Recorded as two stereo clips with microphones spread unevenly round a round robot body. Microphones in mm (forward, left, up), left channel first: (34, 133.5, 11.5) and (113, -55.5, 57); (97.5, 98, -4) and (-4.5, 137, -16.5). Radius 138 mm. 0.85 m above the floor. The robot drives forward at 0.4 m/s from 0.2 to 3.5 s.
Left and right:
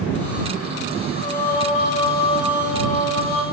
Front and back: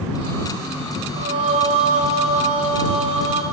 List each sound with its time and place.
1.2 s singing: 175° right, 1.4 m